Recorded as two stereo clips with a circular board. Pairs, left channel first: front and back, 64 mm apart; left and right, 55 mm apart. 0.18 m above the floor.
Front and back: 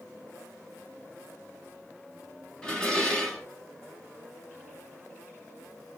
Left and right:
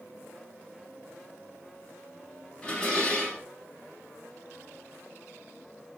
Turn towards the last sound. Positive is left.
turn(degrees=50)